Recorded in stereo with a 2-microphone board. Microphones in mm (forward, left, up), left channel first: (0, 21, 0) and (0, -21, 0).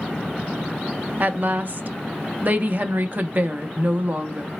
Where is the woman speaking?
40° right (ahead or behind), 0.6 m.